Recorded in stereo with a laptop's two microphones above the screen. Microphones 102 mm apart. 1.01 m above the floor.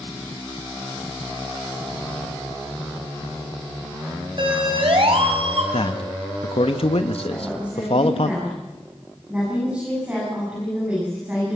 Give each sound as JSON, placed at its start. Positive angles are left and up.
{"t": 4.4, "sound": "a siren", "side_deg": -50, "distance_m": 5.0}
{"t": 5.7, "sound": "a man speaking", "side_deg": 65, "distance_m": 1.4}
{"t": 7.3, "sound": "a woman speaking", "side_deg": -15, "distance_m": 9.5}